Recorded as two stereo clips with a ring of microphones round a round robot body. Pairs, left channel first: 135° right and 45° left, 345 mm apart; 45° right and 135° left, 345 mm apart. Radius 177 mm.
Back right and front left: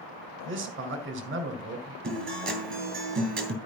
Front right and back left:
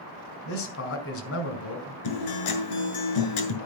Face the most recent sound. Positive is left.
turn(degrees=-20)